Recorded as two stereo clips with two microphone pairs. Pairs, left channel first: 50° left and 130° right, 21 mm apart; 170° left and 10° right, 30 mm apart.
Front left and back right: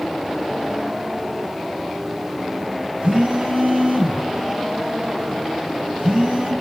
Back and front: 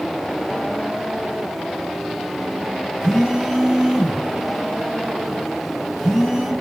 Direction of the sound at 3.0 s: 100° right.